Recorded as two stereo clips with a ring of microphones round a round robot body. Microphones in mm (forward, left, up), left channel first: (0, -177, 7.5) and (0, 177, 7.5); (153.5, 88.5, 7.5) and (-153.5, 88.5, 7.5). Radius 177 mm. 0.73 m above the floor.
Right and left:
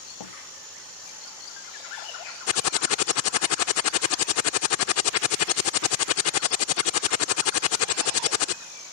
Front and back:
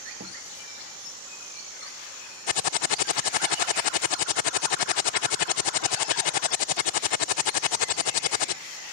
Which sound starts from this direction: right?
A door slam, at 0.2 s.